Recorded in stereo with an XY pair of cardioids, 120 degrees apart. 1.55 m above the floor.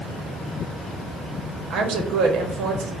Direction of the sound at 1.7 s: 70° right.